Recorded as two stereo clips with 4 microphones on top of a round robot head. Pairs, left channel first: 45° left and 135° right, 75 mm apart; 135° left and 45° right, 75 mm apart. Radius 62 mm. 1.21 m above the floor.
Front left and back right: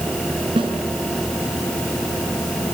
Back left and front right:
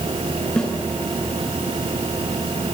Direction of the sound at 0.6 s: 140° right.